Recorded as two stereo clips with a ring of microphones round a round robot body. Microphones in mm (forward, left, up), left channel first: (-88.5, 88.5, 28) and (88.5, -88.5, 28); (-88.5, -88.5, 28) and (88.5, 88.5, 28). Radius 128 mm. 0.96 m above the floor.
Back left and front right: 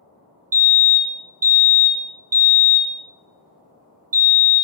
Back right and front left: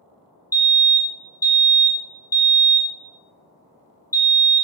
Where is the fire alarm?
65° right, 1.3 m.